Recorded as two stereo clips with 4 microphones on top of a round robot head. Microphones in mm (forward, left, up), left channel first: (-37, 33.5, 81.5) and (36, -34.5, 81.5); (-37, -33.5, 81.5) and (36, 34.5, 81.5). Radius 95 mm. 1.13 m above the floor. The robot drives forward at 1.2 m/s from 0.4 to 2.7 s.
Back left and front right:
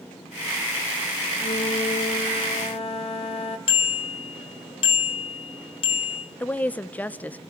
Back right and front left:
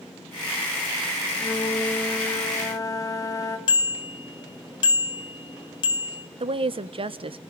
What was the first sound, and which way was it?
A flute, 150° left.